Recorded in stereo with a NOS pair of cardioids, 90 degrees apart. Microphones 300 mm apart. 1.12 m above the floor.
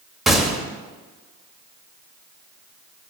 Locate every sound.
0.3 s a gunshot: straight ahead, 1.2 m